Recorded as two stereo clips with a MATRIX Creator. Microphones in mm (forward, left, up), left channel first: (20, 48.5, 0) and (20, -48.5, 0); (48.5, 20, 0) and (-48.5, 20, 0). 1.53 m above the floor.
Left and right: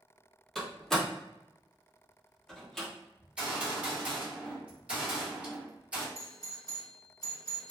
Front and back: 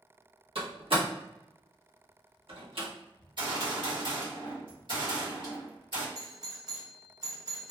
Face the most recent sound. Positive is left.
turn(degrees=135)